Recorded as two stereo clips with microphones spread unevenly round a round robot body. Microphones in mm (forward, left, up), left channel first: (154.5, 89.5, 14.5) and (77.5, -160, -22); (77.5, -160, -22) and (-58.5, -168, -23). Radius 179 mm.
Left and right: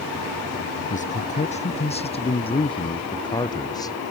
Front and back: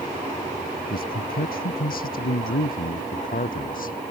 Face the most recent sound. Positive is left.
turn(degrees=-5)